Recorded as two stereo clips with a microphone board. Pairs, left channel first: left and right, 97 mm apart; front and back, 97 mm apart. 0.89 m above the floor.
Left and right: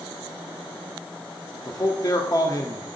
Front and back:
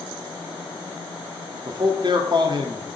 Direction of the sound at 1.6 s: 140° left.